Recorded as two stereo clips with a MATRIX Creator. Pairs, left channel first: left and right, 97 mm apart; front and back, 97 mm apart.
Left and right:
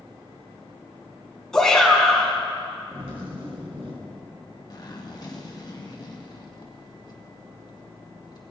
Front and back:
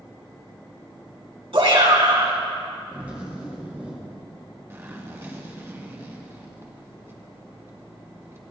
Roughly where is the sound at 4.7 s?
Behind left.